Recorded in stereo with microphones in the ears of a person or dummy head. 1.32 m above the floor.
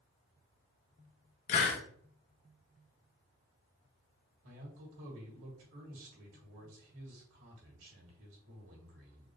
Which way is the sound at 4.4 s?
80° right.